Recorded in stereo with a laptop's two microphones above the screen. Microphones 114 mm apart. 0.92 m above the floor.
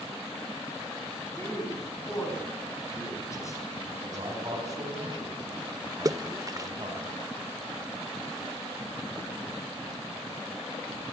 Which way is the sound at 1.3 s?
30° left (ahead or behind).